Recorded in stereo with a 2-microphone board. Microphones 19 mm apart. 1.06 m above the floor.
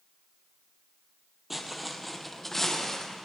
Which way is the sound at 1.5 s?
10° right (ahead or behind).